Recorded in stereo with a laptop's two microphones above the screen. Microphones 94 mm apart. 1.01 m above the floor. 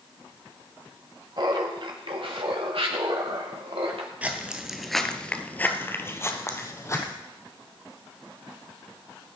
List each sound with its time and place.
1.4 s laughter: 50° right (ahead or behind), 1.7 m; by 4.1 s 80° right, 2.5 m
4.2 s footsteps: 15° right (ahead or behind), 1.1 m; by 7.1 s 30° left (ahead or behind), 2.0 m